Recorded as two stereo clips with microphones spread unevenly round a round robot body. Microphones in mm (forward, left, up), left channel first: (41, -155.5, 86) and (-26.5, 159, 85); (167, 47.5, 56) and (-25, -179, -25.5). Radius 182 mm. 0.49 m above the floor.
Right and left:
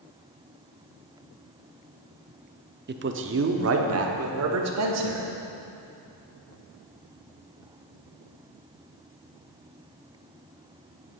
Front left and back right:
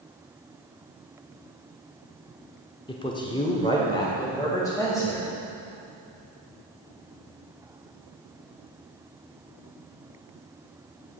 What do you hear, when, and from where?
2.9 s a man speaking: 135° left, 0.8 m